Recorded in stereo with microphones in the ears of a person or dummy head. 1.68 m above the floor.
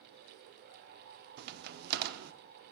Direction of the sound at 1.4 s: 55° right (ahead or behind).